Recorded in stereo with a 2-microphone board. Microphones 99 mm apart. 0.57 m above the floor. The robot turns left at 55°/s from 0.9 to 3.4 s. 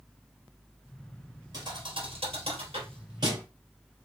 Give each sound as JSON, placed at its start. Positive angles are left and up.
{"t": 1.5, "sound": "a thud", "side_deg": -40, "distance_m": 1.7}